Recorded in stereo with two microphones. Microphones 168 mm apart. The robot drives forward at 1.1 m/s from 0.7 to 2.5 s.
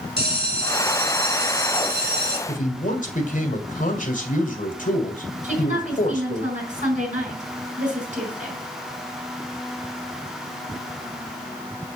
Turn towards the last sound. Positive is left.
turn(degrees=-45)  # may be behind; listen again after turning